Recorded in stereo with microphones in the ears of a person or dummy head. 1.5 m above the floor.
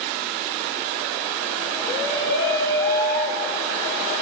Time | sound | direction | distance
1.9 | a shout | 30° left (ahead or behind) | 2 m